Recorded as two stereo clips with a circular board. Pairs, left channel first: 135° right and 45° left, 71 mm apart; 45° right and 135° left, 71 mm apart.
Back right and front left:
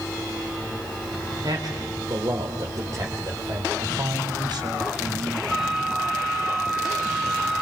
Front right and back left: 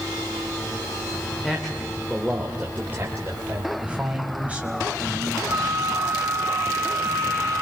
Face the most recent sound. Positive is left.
turn(degrees=130)